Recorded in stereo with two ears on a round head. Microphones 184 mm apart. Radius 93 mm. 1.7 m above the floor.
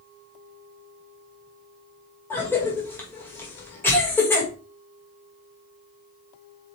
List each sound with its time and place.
2.3 s a cough: 10° left (ahead or behind), 2 m